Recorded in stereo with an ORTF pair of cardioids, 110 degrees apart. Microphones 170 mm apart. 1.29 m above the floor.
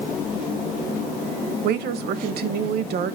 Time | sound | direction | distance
1.6 | a woman speaking | 70° right | 1.2 m